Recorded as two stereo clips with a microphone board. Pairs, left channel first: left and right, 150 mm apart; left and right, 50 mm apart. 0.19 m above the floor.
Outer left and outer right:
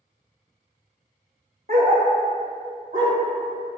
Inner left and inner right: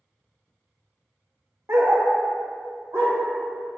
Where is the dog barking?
75° right (ahead or behind), 0.6 m; by 3.1 s 50° right (ahead or behind), 1.5 m.